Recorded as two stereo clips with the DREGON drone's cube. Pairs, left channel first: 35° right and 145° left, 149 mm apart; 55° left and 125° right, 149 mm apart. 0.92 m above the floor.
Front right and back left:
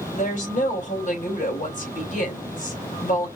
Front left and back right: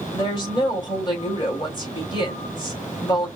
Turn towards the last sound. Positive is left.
turn(degrees=0)